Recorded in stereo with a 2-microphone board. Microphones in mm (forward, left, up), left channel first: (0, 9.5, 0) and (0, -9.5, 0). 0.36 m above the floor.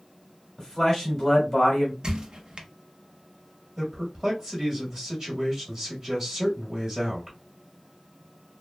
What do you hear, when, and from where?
0.6 s a man speaking: 15° left (ahead or behind), 1.3 m
2.0 s a squeak: 45° right (ahead or behind), 0.6 m
3.8 s a man speaking: 25° right (ahead or behind), 1.3 m